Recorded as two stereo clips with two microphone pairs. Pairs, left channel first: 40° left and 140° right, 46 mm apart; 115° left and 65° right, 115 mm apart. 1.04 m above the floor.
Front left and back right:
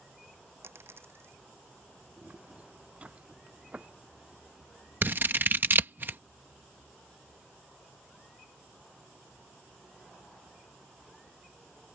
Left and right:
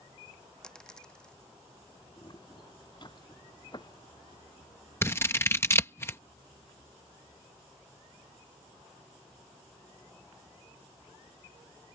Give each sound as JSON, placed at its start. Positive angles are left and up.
{"t": 0.6, "sound": "a dropped coin", "azimuth_deg": -165}
{"t": 2.2, "sound": "footsteps", "azimuth_deg": 165}
{"t": 5.0, "sound": "scissors", "azimuth_deg": 180}